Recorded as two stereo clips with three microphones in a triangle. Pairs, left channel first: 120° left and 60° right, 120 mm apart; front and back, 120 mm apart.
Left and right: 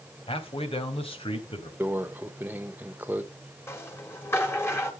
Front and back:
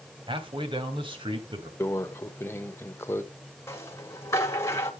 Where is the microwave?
15° right, 0.9 m.